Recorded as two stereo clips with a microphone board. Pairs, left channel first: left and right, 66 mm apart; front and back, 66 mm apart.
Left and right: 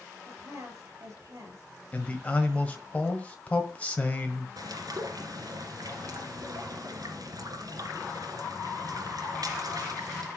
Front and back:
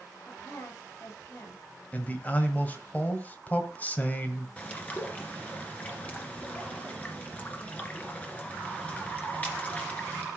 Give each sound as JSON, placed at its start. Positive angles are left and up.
{"t": 0.3, "sound": "a woman speaking", "azimuth_deg": -50, "distance_m": 6.0}
{"t": 1.9, "sound": "a man speaking", "azimuth_deg": 40, "distance_m": 1.5}
{"t": 4.6, "sound": "a bird", "azimuth_deg": -70, "distance_m": 2.0}